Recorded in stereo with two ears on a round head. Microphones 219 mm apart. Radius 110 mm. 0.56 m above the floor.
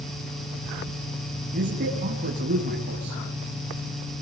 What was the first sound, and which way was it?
A man speaking, 35° right (ahead or behind).